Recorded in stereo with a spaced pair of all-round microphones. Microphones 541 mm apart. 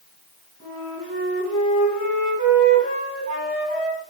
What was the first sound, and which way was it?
A flute, 25° left (ahead or behind).